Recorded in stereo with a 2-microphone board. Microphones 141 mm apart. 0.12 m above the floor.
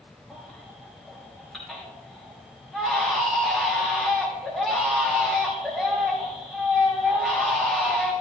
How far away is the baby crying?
About 3.5 m.